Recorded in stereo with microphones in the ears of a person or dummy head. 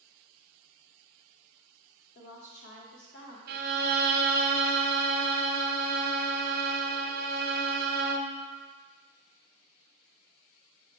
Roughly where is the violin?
Right.